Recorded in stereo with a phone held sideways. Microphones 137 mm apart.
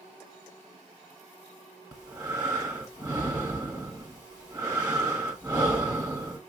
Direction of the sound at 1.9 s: 25° right (ahead or behind).